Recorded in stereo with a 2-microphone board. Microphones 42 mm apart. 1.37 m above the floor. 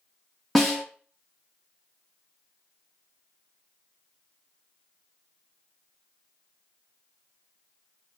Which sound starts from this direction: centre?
A snare drum, at 0.6 s.